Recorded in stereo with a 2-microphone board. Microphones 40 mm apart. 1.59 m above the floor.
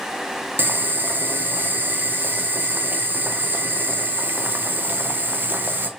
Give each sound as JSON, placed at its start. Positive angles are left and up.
{"t": 0.6, "sound": "boiling", "side_deg": -60, "distance_m": 0.6}